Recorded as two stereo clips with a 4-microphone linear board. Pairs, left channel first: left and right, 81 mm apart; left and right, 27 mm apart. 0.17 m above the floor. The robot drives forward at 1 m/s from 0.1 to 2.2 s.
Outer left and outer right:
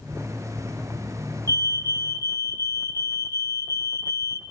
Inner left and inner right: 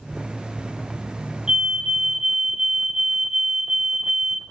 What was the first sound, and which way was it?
A fire alarm, 50° right (ahead or behind).